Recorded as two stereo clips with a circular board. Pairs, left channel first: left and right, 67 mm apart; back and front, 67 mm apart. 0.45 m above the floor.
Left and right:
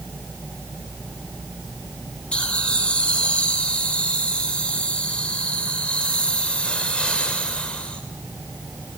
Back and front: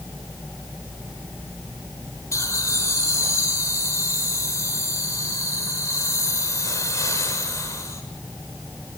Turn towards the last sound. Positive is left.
turn(degrees=160)